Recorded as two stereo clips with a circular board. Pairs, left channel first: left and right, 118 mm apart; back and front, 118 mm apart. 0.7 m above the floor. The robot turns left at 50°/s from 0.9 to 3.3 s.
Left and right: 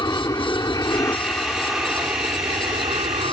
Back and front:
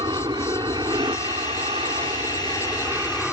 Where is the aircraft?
40° left; by 3.3 s 80° right.